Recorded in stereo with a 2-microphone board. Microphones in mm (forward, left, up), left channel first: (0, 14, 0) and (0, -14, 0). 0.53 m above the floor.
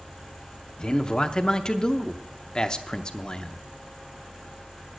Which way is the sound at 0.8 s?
30° left (ahead or behind).